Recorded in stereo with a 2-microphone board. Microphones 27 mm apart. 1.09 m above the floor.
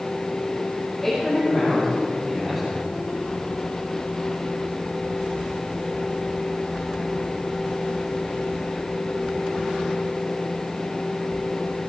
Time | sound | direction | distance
1.0 | a man speaking | 10° left (ahead or behind) | 4.5 m